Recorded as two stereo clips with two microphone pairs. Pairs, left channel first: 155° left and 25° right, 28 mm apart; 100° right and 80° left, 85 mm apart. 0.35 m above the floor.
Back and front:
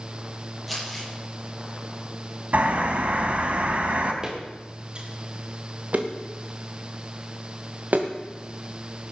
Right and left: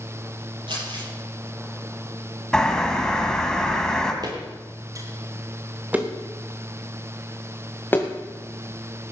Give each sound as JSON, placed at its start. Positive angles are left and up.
{"t": 0.7, "sound": "crumpling", "azimuth_deg": 65, "distance_m": 10.0}
{"t": 2.5, "sound": "a bird", "azimuth_deg": -20, "distance_m": 2.5}
{"t": 4.2, "sound": "footsteps", "azimuth_deg": 40, "distance_m": 4.5}